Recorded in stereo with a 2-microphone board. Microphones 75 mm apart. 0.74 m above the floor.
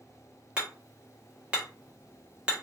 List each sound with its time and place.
0.6 s hammering: 15° right (ahead or behind), 1.0 m